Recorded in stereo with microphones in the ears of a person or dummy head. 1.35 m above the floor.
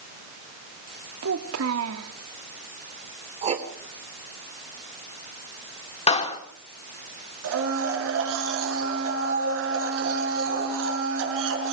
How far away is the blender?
About 7 m.